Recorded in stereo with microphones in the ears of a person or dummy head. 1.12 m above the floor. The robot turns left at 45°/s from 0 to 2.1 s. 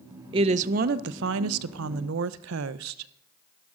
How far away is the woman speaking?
About 0.5 m.